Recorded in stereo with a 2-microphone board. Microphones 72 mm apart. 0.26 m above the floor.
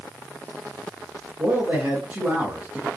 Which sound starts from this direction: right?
A man speaking, at 1.4 s.